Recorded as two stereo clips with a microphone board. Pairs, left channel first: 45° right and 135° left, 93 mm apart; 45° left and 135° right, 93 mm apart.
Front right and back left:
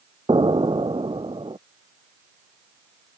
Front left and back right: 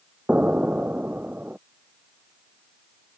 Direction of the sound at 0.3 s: 150° left.